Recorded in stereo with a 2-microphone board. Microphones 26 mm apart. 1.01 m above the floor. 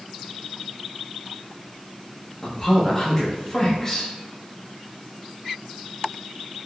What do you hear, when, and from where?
2.4 s a man speaking: 10° left (ahead or behind), 0.6 m